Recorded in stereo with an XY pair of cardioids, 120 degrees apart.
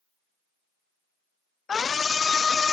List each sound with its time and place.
1.7 s a scream: 30° left